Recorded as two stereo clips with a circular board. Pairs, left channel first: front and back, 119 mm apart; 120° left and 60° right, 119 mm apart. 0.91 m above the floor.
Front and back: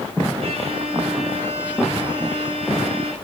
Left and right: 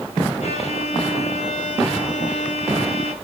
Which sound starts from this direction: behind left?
A violin, at 0.4 s.